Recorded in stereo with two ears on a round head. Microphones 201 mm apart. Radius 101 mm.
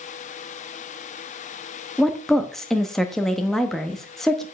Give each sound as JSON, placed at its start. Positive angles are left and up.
{"t": 2.0, "sound": "a woman speaking", "side_deg": 0, "distance_m": 0.9}